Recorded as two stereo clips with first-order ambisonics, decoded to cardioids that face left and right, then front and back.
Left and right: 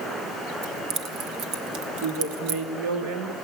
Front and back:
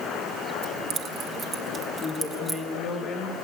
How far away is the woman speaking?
About 3.5 m.